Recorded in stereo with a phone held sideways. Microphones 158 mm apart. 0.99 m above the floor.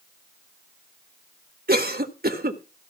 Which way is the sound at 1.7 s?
75° right (ahead or behind).